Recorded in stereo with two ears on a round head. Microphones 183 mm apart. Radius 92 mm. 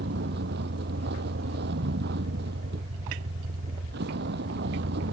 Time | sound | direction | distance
0.0 | a vehicle | 50° right (ahead or behind) | ?